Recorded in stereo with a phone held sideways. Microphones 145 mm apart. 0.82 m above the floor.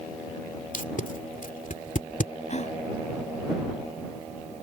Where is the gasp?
55° left (ahead or behind).